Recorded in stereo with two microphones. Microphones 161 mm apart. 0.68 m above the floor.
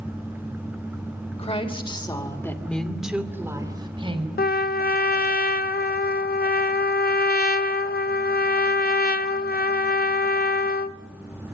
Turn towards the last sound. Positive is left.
turn(degrees=75)  # may be behind; listen again after turning